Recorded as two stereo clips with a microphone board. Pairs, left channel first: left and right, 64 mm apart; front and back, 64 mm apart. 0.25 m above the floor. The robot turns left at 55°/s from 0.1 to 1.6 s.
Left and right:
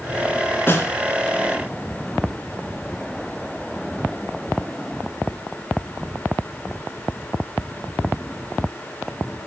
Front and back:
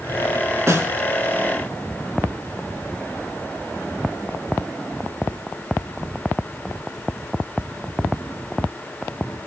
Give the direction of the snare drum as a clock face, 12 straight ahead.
7 o'clock.